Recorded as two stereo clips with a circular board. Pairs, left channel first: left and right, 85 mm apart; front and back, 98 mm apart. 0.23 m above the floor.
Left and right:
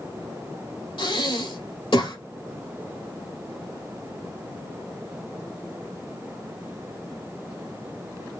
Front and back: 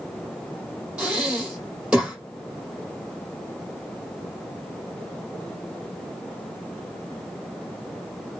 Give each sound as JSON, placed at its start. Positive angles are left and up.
{"t": 1.0, "sound": "breathing", "azimuth_deg": 100, "distance_m": 3.5}